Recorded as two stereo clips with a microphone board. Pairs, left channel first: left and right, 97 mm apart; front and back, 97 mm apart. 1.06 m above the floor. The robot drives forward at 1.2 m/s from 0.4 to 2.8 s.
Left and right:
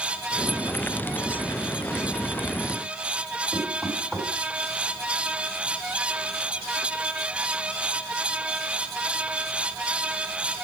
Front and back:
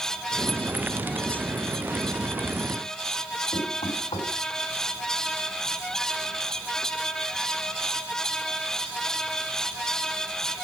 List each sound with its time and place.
3.5 s knocking: 10° right, 5.5 m